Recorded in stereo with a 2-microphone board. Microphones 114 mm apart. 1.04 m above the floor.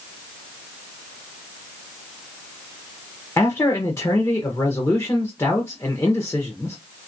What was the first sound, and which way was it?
A man speaking, 25° left (ahead or behind).